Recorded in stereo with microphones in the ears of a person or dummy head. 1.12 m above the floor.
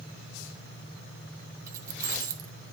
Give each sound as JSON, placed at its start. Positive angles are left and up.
{"t": 1.7, "sound": "keys jangling", "side_deg": -20, "distance_m": 0.8}